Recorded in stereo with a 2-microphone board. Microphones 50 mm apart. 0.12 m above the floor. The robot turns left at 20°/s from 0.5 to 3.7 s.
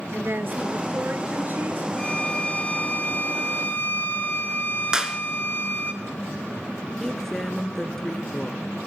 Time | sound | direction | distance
0.1 | a woman speaking | 45° right (ahead or behind) | 1.5 m
2.0 | a violin | 155° left | 2 m
4.9 | a clap | 15° right (ahead or behind) | 1.3 m
7.0 | a woman speaking | 10° left (ahead or behind) | 1.3 m